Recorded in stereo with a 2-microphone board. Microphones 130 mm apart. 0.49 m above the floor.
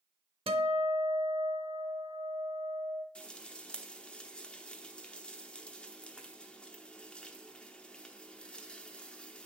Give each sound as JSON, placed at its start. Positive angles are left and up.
{"t": 0.5, "sound": "a guitar", "side_deg": -45, "distance_m": 0.7}
{"t": 3.1, "sound": "frying", "side_deg": 10, "distance_m": 0.8}